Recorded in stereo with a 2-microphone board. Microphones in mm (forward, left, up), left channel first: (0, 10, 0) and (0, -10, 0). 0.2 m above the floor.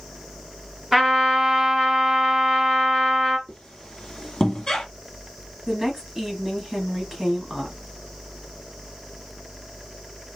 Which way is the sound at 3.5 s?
30° left (ahead or behind).